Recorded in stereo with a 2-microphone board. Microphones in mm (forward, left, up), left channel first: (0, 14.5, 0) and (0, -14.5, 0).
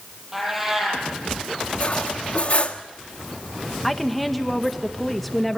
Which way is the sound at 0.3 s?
10° right (ahead or behind).